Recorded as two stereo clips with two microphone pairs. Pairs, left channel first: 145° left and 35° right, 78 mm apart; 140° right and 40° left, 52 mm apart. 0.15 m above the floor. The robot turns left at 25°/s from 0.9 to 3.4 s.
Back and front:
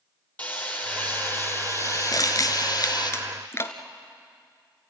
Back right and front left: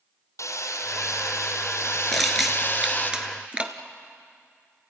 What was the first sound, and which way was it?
Hammering, 145° right.